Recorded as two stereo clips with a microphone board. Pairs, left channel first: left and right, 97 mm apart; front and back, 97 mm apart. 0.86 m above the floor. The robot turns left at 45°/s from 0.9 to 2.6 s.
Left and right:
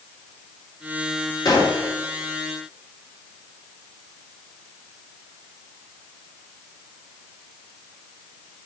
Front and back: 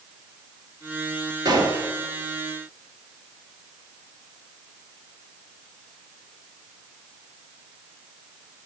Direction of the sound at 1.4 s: 135° left.